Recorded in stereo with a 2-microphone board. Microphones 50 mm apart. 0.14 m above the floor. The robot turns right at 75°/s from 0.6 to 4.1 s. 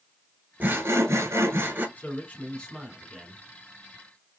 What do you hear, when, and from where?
0.6 s sawing: 140° right, 0.8 m; by 1.9 s 45° right, 0.8 m
2.0 s a man speaking: 100° left, 1.4 m; by 3.4 s 150° right, 1.4 m